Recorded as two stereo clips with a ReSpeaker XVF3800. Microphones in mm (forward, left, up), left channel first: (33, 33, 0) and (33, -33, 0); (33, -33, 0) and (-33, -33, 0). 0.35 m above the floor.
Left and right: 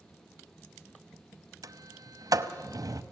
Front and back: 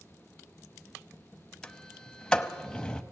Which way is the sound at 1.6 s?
80° right.